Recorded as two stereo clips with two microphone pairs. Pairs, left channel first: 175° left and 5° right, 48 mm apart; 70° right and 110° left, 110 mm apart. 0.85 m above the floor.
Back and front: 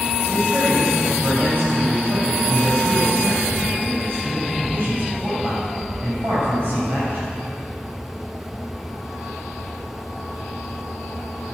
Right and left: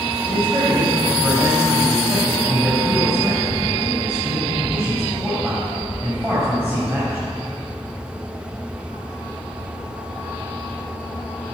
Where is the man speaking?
35° left, 5 m.